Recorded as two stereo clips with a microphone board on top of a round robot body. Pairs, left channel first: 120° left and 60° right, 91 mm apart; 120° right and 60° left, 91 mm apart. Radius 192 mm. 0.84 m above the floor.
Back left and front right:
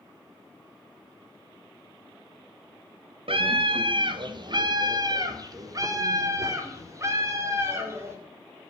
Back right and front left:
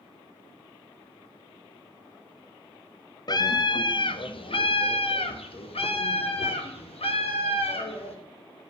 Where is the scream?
75° right, 1.3 m; by 8.2 s 120° right, 3.5 m.